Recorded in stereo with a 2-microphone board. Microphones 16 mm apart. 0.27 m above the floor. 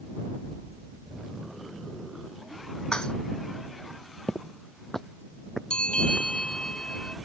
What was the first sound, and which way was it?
Dishes clattering, 55° left (ahead or behind).